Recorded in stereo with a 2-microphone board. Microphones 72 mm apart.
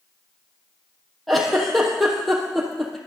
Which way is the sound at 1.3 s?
Centre (ahead or behind).